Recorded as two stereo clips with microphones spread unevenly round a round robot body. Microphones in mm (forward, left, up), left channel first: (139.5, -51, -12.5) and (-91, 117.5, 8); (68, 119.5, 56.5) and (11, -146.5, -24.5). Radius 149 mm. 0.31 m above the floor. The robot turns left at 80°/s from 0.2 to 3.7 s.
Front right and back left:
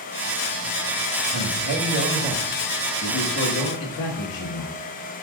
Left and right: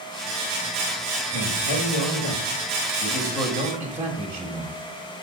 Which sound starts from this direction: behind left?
A man speaking, at 1.3 s.